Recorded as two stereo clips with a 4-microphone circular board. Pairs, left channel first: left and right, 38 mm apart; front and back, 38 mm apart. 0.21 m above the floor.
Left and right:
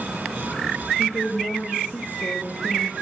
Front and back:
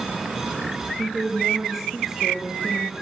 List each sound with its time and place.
1.0 s a woman speaking: 100° left, 3.5 m